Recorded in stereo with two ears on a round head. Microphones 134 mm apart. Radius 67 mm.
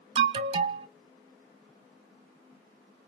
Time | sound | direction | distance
0.1 | an alarm | 35° right (ahead or behind) | 0.6 m